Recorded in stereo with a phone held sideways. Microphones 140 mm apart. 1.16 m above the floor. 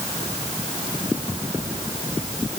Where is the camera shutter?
No camera shutter in this recording.